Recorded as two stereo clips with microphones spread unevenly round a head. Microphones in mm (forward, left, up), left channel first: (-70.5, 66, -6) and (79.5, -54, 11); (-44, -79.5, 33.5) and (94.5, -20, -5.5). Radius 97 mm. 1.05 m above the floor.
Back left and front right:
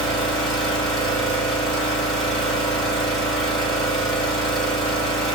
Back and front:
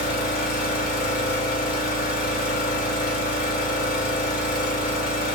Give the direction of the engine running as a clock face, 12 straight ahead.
4 o'clock.